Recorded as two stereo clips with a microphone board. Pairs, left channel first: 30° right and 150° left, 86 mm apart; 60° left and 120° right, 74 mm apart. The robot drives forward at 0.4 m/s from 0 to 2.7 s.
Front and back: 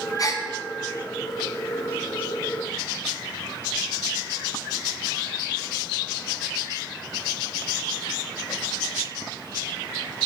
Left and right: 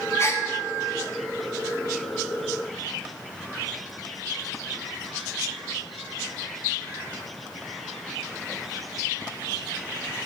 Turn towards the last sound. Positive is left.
turn(degrees=150)